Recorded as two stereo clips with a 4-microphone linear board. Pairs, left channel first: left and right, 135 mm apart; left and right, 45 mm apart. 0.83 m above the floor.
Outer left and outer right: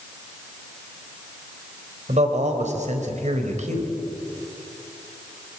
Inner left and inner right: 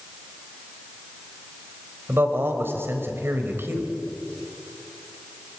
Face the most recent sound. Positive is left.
turn(degrees=-60)  # may be behind; listen again after turning